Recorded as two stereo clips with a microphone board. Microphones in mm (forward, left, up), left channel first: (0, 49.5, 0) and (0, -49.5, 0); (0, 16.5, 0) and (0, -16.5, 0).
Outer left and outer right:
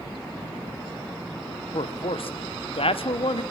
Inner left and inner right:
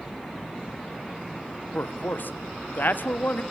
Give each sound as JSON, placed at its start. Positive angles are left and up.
{"t": 1.7, "sound": "a man speaking", "side_deg": 70, "distance_m": 0.7}